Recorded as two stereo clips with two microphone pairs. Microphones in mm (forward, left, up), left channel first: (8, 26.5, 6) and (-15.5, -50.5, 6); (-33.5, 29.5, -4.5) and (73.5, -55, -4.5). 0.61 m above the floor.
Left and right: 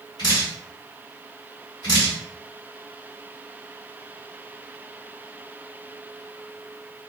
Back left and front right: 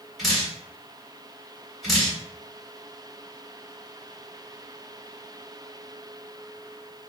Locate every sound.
0.2 s dripping: 50° left, 1.6 m